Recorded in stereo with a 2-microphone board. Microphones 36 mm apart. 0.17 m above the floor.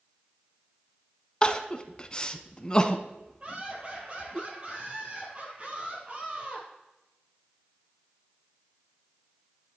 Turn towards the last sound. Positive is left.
turn(degrees=-30)  # may be behind; listen again after turning